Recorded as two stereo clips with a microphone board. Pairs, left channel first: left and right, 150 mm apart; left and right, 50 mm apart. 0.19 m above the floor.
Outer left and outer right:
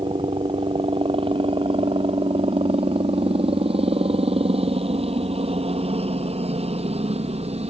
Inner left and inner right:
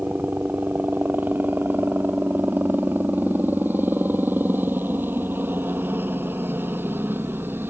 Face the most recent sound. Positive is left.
turn(degrees=-45)  # may be behind; listen again after turning